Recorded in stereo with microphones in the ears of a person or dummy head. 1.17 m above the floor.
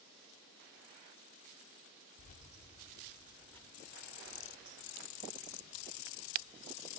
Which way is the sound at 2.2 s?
45° left (ahead or behind).